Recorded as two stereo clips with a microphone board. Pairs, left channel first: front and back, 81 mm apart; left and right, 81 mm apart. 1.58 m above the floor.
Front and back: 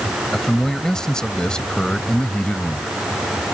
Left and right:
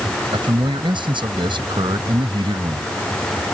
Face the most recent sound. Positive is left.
turn(degrees=-75)